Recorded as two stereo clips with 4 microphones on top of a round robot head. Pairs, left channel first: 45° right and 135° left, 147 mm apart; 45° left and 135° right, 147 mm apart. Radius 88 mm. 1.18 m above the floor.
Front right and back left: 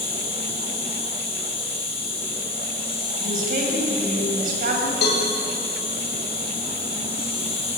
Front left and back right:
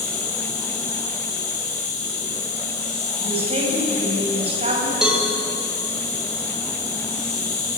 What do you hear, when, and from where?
0.0 s an insect: 5° left, 6 m
3.2 s a woman speaking: 170° left, 6.5 m
5.0 s a cowbell: 50° right, 6 m